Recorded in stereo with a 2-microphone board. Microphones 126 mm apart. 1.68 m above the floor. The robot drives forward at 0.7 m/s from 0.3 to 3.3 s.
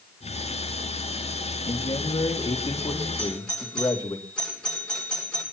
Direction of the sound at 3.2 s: 5° left (ahead or behind).